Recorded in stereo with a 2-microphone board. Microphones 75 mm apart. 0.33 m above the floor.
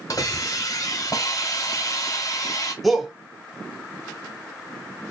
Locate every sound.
0.1 s a hiss: 50° left (ahead or behind), 1.3 m
2.8 s a shout: centre (ahead or behind), 1.0 m